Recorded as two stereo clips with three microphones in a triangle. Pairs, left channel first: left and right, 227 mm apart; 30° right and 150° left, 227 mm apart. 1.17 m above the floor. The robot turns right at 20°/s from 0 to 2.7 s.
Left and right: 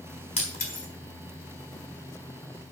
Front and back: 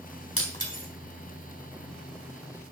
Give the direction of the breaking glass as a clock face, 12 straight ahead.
11 o'clock.